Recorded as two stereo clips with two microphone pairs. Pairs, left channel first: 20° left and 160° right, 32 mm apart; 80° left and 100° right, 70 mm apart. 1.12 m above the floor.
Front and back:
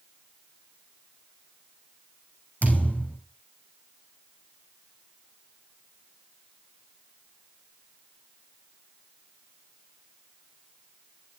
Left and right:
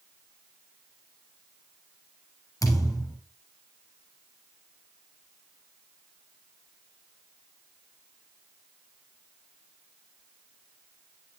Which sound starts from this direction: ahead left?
A thud, at 2.6 s.